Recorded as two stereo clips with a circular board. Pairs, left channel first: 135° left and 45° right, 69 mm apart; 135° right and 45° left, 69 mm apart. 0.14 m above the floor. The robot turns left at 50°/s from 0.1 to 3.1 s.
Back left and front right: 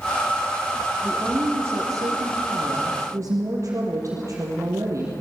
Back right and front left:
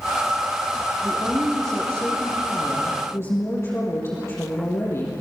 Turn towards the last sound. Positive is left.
turn(degrees=-85)